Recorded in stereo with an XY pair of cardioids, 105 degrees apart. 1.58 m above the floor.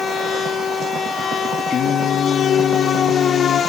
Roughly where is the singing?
Left.